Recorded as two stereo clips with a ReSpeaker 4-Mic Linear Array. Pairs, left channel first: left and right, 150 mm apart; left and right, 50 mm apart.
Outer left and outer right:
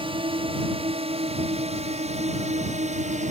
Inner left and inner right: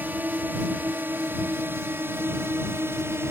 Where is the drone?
35° right (ahead or behind); by 3.3 s 50° right (ahead or behind).